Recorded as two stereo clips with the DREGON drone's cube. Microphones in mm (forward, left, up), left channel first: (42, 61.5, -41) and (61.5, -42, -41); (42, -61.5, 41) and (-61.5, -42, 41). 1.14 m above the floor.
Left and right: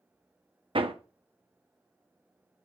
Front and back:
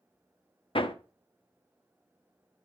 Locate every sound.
0.8 s hammering: 45° right, 0.8 m